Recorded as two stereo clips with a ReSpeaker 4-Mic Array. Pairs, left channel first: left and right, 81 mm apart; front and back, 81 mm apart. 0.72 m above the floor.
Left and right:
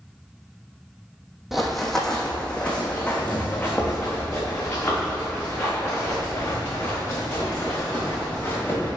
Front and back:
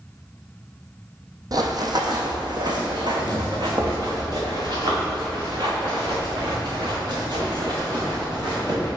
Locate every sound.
1.5 s running footsteps: 175° right, 1.1 m; by 8.9 s 155° left, 5.5 m